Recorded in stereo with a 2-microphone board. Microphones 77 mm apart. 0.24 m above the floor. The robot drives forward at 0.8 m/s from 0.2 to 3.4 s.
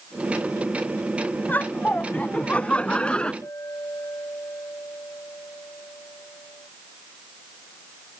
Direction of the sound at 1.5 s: 25° left (ahead or behind).